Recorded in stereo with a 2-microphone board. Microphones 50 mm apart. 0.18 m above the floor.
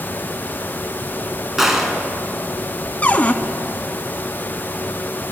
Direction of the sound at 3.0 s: 30° left (ahead or behind).